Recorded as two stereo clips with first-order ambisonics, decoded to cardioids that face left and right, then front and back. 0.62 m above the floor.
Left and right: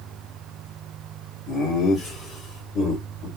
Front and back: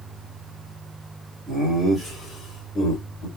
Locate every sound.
1.5 s laughter: 120° left, 1.4 m; by 3.3 s 55° left, 2 m